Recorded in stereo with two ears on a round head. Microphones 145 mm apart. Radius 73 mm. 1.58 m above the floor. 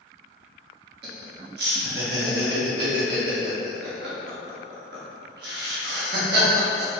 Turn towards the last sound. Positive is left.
turn(degrees=-65)  # may be behind; listen again after turning